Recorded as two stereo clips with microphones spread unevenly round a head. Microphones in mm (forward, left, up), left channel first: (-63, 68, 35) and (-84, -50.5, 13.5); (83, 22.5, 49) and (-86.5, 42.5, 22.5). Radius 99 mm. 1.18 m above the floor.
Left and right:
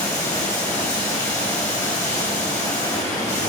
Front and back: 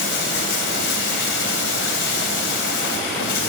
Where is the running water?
5° left, 2.5 m.